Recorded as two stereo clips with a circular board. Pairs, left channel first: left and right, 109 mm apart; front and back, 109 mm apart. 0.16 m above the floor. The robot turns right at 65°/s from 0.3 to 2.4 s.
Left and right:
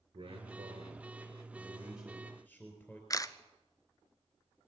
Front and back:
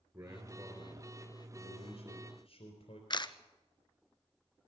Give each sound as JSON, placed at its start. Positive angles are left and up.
{"t": 0.1, "sound": "a man speaking", "azimuth_deg": -120, "distance_m": 3.5}
{"t": 3.1, "sound": "a camera shutter", "azimuth_deg": 40, "distance_m": 0.7}